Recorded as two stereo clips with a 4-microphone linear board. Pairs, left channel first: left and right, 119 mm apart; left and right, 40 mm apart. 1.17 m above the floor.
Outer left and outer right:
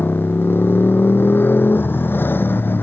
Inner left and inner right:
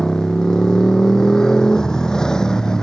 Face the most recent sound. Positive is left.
turn(degrees=15)  # may be behind; listen again after turning